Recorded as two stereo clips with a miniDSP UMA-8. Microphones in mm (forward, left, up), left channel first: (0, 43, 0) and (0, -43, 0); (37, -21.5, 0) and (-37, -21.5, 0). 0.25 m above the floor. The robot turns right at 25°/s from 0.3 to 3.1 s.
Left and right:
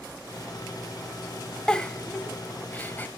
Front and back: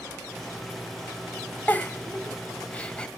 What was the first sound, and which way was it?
A giggle, 20° left.